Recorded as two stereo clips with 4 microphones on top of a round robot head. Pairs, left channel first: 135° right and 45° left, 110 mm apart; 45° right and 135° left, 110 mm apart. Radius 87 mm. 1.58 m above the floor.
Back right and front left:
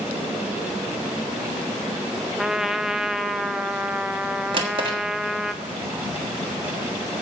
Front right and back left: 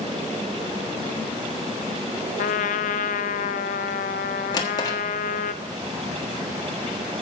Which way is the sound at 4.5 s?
5° left.